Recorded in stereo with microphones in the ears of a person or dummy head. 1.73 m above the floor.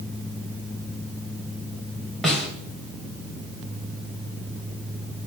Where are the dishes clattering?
I don't hear dishes clattering.